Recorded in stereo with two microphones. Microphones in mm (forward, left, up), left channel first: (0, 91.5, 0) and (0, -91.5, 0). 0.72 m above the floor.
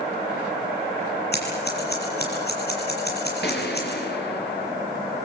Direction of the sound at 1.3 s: 60° left (ahead or behind).